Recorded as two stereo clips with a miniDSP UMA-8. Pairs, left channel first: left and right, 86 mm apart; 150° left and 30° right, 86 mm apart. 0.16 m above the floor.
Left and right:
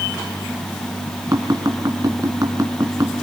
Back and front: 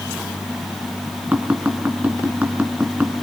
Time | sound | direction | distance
1.3 | tapping | 90° right | 2 m